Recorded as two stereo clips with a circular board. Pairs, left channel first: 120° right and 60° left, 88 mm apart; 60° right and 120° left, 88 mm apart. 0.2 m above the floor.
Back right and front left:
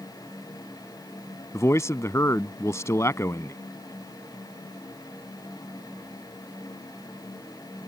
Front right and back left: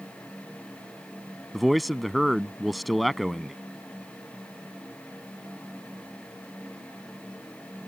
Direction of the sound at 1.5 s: 150° right.